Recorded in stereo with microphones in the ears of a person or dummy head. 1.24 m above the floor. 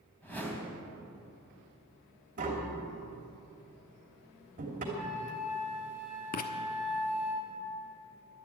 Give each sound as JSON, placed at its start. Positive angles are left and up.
{"t": 0.2, "sound": "a whoosh", "side_deg": 10, "distance_m": 3.0}
{"t": 2.4, "sound": "tapping", "side_deg": -40, "distance_m": 3.0}
{"t": 4.9, "sound": "a flute", "side_deg": 40, "distance_m": 7.0}
{"t": 6.3, "sound": "writing", "side_deg": 45, "distance_m": 1.0}